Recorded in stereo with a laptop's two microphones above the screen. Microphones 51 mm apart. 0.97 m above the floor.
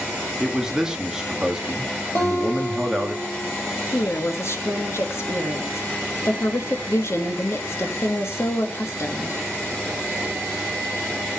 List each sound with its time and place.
0.4 s a man speaking: 10° right (ahead or behind), 1.3 m
2.1 s a guitar: 50° left (ahead or behind), 4 m
3.9 s a woman speaking: 55° left (ahead or behind), 1.9 m